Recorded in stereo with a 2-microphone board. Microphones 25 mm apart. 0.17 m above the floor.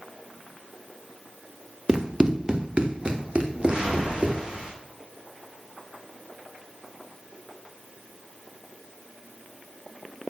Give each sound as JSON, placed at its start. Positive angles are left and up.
{"t": 1.9, "sound": "running footsteps", "side_deg": -25, "distance_m": 1.2}
{"t": 3.5, "sound": "a whoosh", "side_deg": -40, "distance_m": 3.0}